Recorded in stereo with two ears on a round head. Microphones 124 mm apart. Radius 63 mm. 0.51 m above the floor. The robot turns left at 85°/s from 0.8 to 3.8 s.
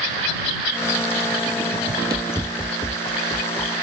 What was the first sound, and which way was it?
Running footsteps, 35° right (ahead or behind).